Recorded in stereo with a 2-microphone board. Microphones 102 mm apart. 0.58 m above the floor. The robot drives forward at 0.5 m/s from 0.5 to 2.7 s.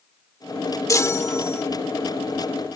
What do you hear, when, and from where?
0.9 s a chime: 35° left (ahead or behind); by 1.6 s 25° left (ahead or behind)